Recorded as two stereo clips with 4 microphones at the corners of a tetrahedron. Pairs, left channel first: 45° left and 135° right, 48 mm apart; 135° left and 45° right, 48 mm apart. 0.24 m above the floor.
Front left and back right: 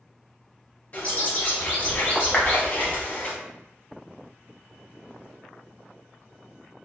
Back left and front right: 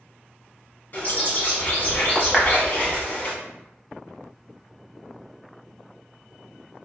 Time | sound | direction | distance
0.9 | a bird | 90° left | 1.0 m
2.3 | a clap | 55° left | 0.7 m